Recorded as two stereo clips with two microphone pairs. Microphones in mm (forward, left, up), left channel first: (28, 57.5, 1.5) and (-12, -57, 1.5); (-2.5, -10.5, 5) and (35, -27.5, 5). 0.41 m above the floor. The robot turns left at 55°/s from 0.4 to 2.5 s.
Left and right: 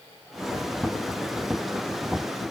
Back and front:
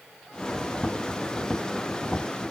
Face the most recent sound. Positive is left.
No sound to turn to.